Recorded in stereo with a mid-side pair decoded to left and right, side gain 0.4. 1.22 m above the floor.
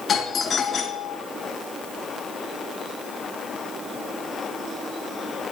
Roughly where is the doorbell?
Ahead left.